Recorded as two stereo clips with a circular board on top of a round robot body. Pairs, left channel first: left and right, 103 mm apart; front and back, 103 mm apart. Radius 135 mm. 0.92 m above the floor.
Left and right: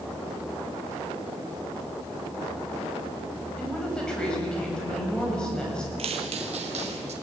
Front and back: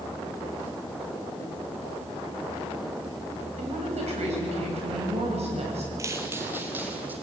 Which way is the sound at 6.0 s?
120° right.